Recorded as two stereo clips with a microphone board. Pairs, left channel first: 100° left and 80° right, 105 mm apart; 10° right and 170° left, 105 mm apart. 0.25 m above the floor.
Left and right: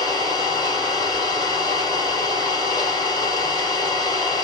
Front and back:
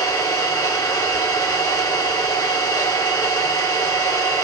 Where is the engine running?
50° left, 4.5 m.